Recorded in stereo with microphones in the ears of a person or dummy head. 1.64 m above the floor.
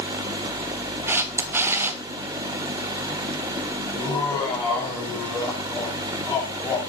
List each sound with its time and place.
1.1 s a camera shutter: 20° right (ahead or behind), 0.8 m
3.9 s laughter: 15° left (ahead or behind), 4.5 m